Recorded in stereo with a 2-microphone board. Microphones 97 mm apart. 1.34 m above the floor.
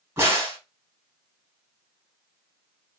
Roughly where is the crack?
Right.